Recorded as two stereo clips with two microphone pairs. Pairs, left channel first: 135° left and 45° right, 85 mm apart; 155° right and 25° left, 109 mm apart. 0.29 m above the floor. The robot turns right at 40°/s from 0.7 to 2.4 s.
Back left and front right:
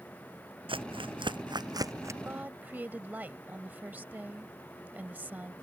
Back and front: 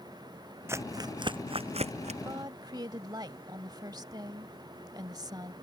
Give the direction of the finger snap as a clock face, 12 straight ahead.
No finger snap in this recording.